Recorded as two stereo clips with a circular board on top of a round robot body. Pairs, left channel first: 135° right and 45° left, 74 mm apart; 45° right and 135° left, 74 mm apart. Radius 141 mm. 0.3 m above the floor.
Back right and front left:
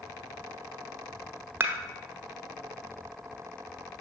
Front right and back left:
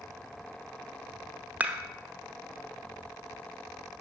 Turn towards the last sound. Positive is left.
turn(degrees=80)